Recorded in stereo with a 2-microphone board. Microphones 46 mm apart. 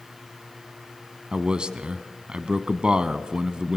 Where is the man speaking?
20° right (ahead or behind), 1.0 m.